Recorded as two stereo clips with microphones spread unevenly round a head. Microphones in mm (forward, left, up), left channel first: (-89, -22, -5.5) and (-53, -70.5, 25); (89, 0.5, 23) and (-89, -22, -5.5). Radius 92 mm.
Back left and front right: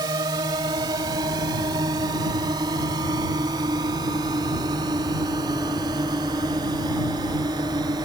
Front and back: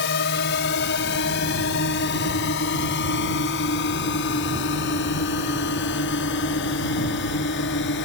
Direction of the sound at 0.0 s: 20° right.